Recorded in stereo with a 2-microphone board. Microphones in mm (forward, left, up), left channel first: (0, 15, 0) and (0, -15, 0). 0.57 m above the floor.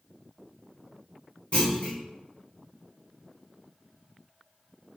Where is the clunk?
35° left (ahead or behind), 1.0 m.